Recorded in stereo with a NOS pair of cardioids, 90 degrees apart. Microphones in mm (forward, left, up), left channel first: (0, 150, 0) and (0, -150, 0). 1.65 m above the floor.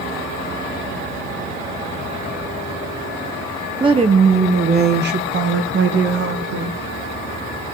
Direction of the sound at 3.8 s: 15° right.